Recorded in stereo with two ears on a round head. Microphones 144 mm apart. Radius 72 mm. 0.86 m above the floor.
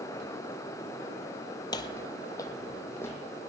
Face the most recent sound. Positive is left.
turn(degrees=15)  # may be behind; listen again after turning